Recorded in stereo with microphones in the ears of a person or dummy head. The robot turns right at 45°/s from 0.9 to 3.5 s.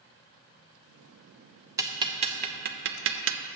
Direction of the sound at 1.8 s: 10° right (ahead or behind).